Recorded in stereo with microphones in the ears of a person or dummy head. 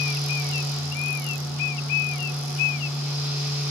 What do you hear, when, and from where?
0.0 s a fan: 10° right (ahead or behind), 6 m